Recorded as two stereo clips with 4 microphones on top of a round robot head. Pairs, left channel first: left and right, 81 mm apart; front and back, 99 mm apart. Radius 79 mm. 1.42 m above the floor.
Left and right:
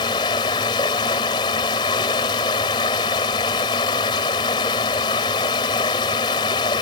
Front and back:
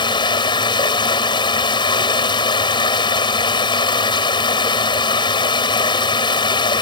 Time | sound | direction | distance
0.0 | running water | 40° left | ?